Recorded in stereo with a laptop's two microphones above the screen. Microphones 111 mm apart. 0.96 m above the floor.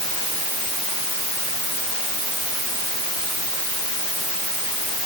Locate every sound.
Only background noise.